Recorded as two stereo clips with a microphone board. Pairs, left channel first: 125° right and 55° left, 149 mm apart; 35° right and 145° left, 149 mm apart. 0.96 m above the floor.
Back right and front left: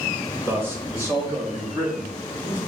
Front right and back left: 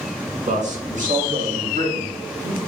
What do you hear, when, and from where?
0.5 s a man speaking: 130° left, 1.4 m; by 2.6 s 125° left, 3 m